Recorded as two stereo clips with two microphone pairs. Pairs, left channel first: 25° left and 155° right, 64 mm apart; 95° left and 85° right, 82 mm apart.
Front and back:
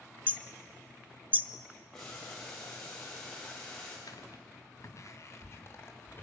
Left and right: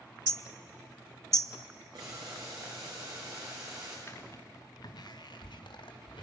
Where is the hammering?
35° right, 0.6 m.